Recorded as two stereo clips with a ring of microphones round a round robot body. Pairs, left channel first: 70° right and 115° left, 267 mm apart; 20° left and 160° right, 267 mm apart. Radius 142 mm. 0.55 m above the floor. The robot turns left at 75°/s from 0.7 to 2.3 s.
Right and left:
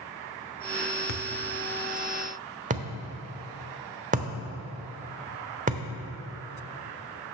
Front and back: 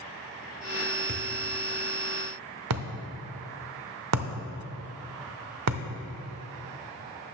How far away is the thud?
About 1.0 m.